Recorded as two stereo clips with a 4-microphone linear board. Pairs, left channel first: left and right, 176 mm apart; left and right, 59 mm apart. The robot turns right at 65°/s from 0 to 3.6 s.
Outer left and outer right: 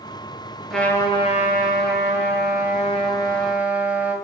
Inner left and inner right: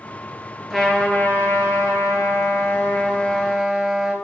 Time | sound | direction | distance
0.7 | a trumpet | straight ahead | 2.5 m